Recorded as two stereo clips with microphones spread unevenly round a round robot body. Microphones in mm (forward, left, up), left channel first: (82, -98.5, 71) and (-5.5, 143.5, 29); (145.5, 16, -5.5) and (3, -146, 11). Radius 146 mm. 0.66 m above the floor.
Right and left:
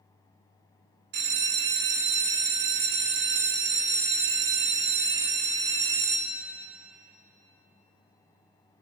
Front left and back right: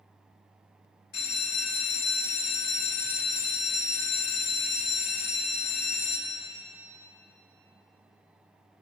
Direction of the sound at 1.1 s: 110° left.